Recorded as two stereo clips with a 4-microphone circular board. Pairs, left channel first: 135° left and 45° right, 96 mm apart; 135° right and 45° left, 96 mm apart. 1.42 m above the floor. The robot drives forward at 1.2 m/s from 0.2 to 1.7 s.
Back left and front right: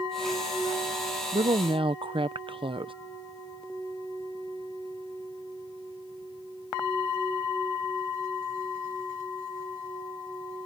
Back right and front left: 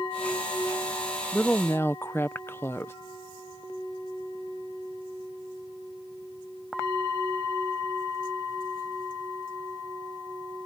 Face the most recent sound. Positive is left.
turn(degrees=-70)